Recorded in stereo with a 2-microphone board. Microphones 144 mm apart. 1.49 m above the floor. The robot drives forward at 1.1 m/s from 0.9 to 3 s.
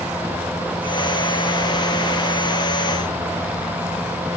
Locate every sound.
Only background noise.